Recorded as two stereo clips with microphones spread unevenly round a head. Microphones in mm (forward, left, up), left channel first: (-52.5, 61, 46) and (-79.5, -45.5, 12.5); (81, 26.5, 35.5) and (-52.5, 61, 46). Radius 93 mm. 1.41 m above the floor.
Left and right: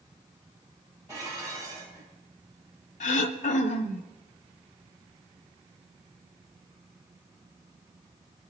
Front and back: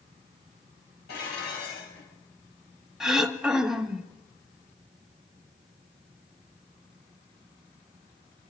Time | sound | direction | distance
1.1 | dishes clattering | 30° right | 5.5 m
3.0 | throat clearing | 80° left | 1.3 m